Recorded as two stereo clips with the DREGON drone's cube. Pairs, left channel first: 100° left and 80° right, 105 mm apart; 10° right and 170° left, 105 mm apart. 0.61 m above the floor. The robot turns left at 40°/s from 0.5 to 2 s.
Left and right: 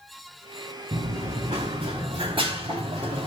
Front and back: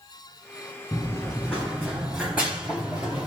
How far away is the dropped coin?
I don't hear a dropped coin.